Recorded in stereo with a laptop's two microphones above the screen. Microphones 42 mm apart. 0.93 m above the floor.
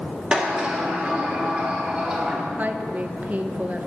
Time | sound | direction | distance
0.3 | a sliding door | 25° right (ahead or behind) | 1.7 m
2.6 | a woman speaking | 40° right (ahead or behind) | 0.5 m